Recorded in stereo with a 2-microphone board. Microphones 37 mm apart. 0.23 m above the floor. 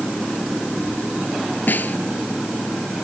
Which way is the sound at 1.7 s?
50° left (ahead or behind).